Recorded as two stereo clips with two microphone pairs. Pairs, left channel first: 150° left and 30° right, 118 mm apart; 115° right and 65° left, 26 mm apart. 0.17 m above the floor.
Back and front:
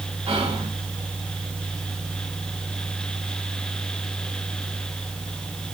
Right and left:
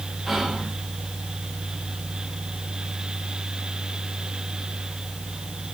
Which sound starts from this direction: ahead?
Whispering, at 0.3 s.